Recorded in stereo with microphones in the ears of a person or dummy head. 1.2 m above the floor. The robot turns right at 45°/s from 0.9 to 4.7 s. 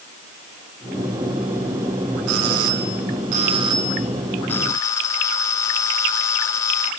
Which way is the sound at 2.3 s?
90° right.